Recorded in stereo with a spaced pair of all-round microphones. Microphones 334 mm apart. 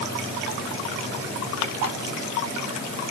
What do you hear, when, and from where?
Only background noise.